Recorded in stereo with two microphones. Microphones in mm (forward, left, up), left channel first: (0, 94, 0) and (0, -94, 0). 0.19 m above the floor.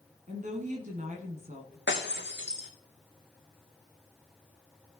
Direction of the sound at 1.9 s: 70° left (ahead or behind).